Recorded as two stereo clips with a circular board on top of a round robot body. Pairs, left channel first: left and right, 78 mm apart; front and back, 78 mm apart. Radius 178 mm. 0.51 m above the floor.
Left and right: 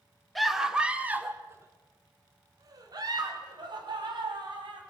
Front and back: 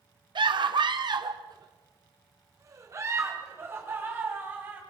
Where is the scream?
Straight behind, 1.9 m; by 4.8 s 115° right, 4.5 m.